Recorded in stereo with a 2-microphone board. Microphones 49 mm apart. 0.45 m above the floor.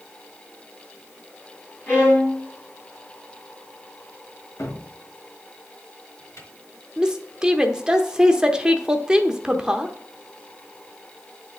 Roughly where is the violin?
Left.